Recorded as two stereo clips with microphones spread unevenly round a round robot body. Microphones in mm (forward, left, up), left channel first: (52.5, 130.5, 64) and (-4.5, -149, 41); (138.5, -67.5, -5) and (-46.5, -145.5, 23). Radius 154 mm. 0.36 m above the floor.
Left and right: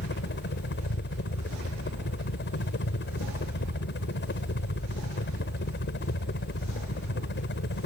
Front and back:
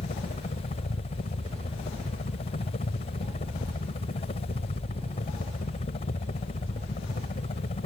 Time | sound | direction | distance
0.0 | a helicopter | 55° left | ?